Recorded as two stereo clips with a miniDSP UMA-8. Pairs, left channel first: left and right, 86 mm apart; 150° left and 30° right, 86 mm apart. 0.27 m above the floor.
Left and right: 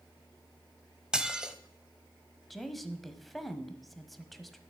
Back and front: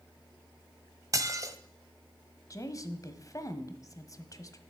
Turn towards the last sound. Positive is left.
turn(degrees=180)